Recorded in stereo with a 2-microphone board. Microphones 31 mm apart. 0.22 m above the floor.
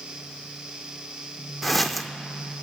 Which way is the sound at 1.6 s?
Centre (ahead or behind).